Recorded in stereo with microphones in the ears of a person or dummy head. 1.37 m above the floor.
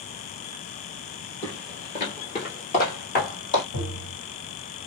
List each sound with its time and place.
1.4 s footsteps: 15° left (ahead or behind), 1.5 m; by 3.6 s 55° left (ahead or behind), 2.5 m
3.7 s tapping: 85° left, 2 m